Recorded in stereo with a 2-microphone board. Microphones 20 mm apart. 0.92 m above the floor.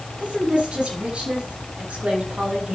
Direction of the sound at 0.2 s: 70° right (ahead or behind).